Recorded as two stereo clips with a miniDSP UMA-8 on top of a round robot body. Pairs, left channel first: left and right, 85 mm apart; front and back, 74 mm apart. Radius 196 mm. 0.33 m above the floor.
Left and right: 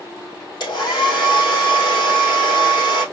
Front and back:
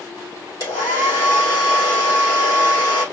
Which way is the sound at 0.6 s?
50° left.